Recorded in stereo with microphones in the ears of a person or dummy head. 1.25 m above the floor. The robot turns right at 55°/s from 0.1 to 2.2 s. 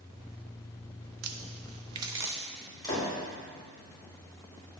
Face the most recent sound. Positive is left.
turn(degrees=20)  # may be behind; listen again after turning